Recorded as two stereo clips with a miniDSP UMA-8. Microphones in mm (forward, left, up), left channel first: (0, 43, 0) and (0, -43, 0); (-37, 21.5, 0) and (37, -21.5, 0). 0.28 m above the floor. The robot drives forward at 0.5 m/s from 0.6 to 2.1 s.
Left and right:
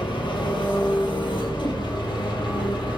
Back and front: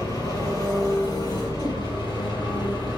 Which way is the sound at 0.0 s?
105° left.